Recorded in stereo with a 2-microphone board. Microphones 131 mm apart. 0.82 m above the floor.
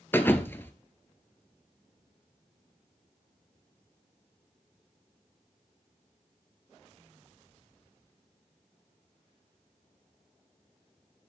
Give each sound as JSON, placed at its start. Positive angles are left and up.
{"t": 0.1, "sound": "a thud", "side_deg": 15, "distance_m": 0.9}